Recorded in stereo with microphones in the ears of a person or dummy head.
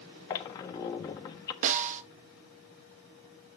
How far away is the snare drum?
About 0.5 m.